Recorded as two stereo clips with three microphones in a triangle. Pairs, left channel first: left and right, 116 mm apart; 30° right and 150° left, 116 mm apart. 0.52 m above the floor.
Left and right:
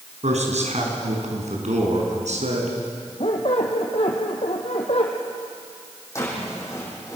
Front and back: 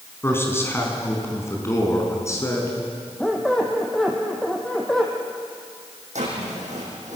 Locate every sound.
0.2 s a man speaking: 100° right, 4.5 m; by 2.8 s 95° right, 6 m
3.2 s a squeak: 55° left, 3 m
6.2 s a drawer: 155° left, 6.5 m